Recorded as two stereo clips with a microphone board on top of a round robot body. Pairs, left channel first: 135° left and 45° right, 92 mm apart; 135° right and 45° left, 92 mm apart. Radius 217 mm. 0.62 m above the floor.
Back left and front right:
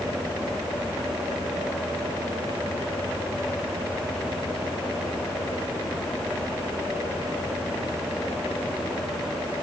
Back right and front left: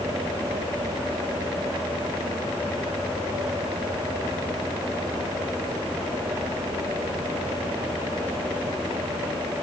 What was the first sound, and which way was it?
Only background noise.